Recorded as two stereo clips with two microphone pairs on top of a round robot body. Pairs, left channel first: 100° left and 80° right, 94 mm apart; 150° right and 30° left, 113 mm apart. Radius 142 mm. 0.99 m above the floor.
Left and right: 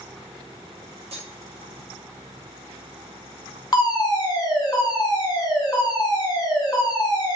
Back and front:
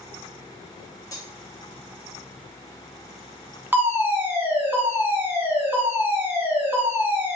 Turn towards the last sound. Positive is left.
turn(degrees=105)